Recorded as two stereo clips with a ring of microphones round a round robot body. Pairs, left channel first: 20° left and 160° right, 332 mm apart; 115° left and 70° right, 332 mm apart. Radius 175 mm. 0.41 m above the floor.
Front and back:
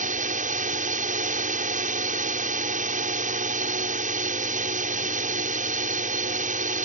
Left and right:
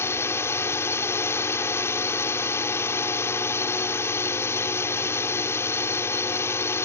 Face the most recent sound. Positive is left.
turn(degrees=-175)